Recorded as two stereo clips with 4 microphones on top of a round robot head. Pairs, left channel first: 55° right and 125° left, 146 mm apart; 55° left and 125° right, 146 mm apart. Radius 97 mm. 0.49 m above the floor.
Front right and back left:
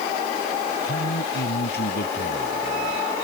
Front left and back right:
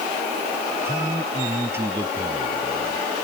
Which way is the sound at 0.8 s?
50° right.